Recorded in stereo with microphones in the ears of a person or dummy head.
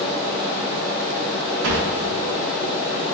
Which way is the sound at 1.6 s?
60° right (ahead or behind).